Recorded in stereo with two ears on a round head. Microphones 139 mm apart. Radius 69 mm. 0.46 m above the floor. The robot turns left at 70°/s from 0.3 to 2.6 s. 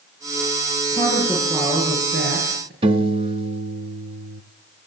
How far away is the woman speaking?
About 9.5 m.